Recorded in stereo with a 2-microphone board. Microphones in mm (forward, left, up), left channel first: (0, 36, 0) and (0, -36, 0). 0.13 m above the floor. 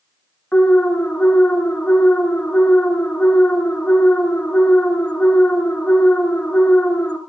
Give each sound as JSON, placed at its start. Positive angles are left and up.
{"t": 0.5, "sound": "an alarm", "side_deg": 20, "distance_m": 1.0}